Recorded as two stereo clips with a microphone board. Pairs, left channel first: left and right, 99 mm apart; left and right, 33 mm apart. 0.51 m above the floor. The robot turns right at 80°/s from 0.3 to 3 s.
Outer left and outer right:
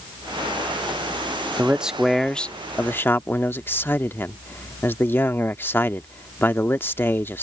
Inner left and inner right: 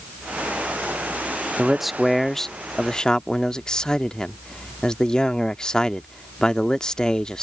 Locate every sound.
1.6 s a man speaking: 15° right (ahead or behind); by 7.4 s 20° left (ahead or behind)